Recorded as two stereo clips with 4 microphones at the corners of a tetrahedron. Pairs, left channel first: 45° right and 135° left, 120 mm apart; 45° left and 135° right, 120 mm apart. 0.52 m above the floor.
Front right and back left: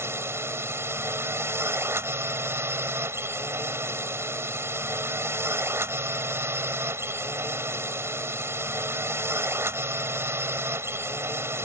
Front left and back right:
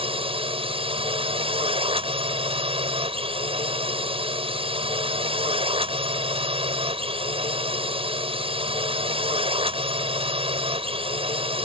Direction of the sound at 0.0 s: 160° right.